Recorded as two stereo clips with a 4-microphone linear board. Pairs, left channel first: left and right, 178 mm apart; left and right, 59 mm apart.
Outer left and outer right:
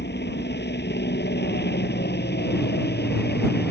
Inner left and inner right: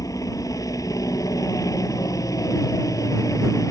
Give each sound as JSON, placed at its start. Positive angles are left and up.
{"t": 0.0, "sound": "a helicopter", "side_deg": 65}